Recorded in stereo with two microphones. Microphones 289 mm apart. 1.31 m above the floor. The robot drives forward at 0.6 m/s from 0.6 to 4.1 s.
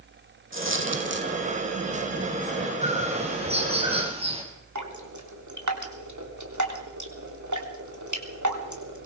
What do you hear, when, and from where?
0.5 s a dropped coin: 45° right (ahead or behind), 3 m; by 1.3 s 40° right (ahead or behind), 3 m
2.8 s a bird: 25° right (ahead or behind), 4.5 m; by 4.4 s 20° right (ahead or behind), 5 m
4.8 s dripping: 85° right, 3.5 m